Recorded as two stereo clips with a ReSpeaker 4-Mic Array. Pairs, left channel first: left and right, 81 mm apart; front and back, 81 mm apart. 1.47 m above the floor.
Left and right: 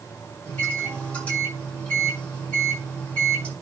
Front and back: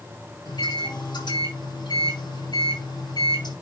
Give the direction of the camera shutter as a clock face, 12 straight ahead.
I don't hear a camera shutter.